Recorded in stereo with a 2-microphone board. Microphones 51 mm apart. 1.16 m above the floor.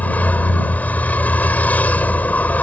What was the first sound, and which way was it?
A vehicle, 30° left (ahead or behind).